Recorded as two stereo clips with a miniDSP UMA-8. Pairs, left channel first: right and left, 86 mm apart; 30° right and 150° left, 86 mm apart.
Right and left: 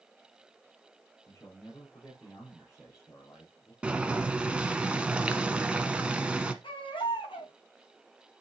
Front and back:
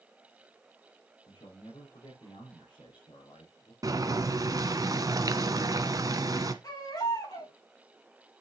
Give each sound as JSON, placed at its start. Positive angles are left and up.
{"t": 1.3, "sound": "a man speaking", "azimuth_deg": -30, "distance_m": 4.0}
{"t": 3.8, "sound": "boiling", "azimuth_deg": 165, "distance_m": 1.0}
{"t": 6.6, "sound": "a baby crying", "azimuth_deg": -70, "distance_m": 5.0}